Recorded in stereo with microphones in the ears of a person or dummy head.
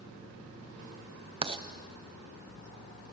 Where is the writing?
25° right (ahead or behind), 1.0 m.